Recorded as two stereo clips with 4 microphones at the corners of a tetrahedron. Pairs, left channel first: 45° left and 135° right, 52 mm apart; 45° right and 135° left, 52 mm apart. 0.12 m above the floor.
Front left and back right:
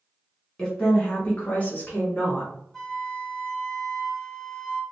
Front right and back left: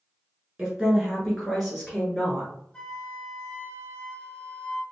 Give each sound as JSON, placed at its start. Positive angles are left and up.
{"t": 0.6, "sound": "a woman speaking", "azimuth_deg": 90, "distance_m": 1.2}
{"t": 2.7, "sound": "a flute", "azimuth_deg": -20, "distance_m": 0.8}